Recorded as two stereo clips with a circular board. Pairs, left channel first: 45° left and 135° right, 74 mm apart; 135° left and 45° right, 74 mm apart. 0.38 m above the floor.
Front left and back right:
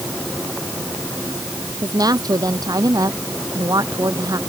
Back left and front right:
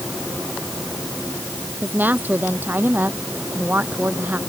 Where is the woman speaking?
110° right.